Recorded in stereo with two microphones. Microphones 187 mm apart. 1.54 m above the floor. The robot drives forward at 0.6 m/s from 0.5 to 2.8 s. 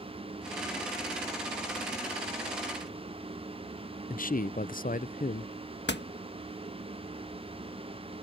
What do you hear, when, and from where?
4.1 s a man speaking: 50° left (ahead or behind)
5.9 s a door slam: 70° left (ahead or behind)